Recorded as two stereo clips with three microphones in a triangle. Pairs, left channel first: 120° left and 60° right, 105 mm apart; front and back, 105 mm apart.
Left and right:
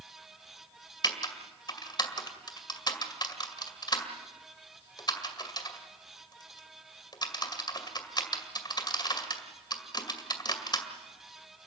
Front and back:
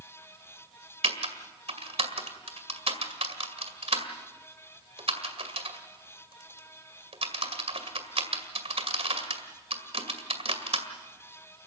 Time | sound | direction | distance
1.0 | typing on a keyboard | 165° left | 2 m